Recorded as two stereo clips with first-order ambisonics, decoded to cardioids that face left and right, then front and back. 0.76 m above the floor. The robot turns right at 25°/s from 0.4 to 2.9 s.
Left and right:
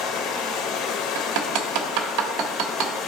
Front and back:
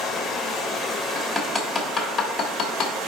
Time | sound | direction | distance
0.0 | running water | 75° left | 1.6 m
1.1 | hammering | 100° right | 1.2 m